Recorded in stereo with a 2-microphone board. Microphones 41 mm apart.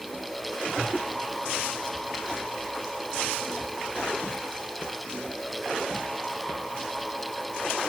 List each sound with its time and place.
Only background noise.